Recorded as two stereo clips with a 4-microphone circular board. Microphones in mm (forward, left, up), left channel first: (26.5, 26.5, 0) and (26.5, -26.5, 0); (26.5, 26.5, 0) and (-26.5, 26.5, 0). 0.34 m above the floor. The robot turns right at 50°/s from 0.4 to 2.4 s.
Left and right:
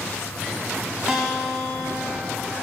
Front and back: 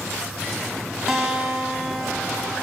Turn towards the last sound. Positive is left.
turn(degrees=-60)